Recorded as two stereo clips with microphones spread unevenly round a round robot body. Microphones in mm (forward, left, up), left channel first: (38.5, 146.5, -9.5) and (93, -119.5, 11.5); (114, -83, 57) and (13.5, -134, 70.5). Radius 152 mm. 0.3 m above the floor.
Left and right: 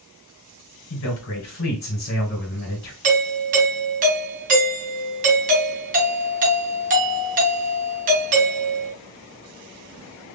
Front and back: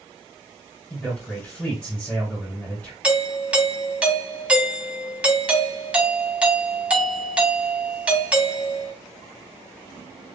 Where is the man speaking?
95° left, 1.9 m.